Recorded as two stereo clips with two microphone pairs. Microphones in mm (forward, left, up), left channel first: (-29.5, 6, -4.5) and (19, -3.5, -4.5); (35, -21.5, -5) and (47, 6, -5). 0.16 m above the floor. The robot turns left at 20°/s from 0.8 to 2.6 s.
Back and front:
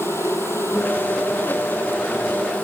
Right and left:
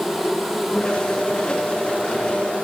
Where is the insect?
170° left, 8 m; by 2.6 s 130° left, 8 m.